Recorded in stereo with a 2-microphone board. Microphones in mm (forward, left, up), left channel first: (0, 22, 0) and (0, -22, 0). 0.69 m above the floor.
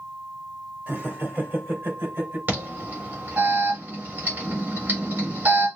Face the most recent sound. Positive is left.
turn(degrees=-50)  # may be behind; listen again after turning